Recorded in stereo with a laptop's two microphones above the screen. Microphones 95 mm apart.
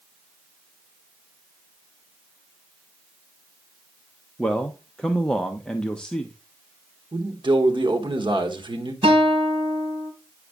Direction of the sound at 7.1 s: 55° right (ahead or behind).